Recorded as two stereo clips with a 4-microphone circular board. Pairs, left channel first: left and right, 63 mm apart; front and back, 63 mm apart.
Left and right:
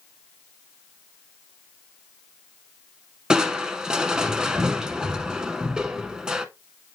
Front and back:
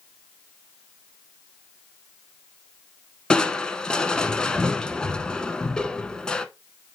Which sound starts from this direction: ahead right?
Crushing, at 3.3 s.